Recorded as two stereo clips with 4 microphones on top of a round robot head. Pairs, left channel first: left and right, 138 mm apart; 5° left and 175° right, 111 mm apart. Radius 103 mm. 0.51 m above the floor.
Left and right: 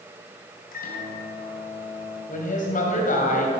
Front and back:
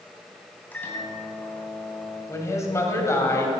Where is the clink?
No clink in this recording.